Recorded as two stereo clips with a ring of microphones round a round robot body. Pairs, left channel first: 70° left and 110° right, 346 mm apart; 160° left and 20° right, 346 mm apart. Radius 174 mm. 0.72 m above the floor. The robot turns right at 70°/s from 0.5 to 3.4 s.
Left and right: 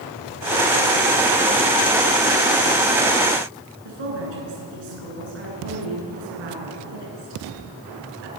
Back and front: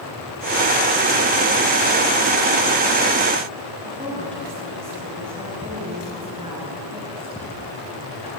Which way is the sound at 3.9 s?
100° right.